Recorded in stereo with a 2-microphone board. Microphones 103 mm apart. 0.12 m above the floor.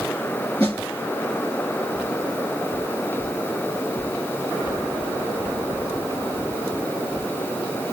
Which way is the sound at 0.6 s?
15° left (ahead or behind).